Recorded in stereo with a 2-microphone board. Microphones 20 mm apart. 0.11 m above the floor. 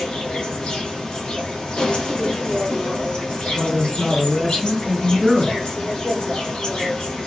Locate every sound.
0.0 s an insect: 50° left (ahead or behind), 1.4 m
3.5 s a man speaking: 15° left (ahead or behind), 1.5 m